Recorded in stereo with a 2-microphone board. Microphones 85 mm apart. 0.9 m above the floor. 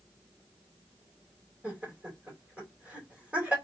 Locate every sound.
1.6 s laughter: 15° right (ahead or behind), 2.5 m